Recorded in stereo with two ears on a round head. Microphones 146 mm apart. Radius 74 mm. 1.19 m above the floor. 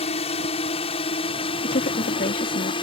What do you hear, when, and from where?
0.0 s a drone: 40° left (ahead or behind); by 2.8 s 30° left (ahead or behind)
1.6 s a woman speaking: 55° left (ahead or behind)